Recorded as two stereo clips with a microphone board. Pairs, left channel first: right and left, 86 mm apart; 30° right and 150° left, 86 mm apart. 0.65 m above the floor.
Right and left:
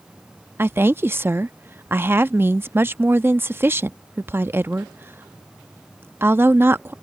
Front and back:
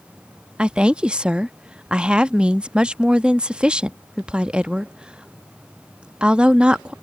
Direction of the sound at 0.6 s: 85° left.